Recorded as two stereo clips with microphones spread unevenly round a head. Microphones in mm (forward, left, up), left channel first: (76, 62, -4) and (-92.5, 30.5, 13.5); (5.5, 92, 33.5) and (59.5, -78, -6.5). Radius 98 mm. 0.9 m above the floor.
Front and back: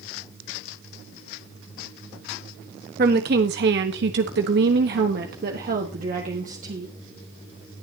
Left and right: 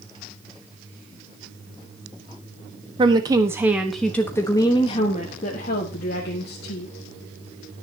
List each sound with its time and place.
3.0 s a woman speaking: 130° right, 1.3 m; by 7.8 s 135° left, 2.5 m